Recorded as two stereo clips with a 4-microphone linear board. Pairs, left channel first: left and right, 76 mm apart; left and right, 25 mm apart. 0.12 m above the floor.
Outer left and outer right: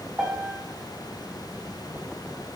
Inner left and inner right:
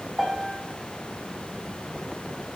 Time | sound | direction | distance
0.2 | a piano | 25° right (ahead or behind) | 5 m